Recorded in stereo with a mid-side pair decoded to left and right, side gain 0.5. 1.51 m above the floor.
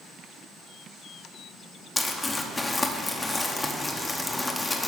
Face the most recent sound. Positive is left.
turn(degrees=20)